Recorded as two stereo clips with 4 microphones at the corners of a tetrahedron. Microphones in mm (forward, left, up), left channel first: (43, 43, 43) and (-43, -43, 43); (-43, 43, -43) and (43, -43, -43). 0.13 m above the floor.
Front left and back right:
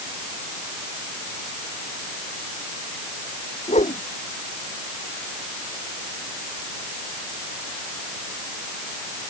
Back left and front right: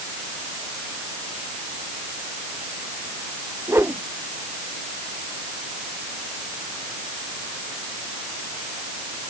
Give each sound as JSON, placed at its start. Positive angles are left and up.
{"t": 3.7, "sound": "a whoosh", "azimuth_deg": 25}